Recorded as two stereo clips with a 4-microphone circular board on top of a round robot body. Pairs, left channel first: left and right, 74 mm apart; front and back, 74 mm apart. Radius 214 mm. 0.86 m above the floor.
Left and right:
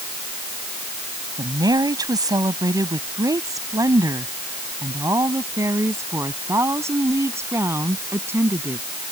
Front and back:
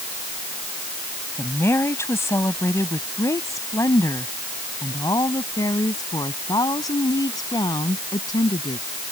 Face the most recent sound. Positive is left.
turn(degrees=-30)